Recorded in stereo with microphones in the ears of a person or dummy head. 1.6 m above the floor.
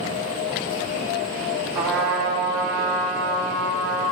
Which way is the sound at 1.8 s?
10° right (ahead or behind).